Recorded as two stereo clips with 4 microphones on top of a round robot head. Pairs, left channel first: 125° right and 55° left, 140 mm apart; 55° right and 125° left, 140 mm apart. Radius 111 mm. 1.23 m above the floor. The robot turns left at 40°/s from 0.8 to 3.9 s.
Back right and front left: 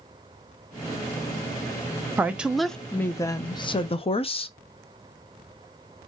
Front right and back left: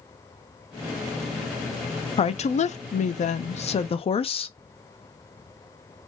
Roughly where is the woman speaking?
Ahead.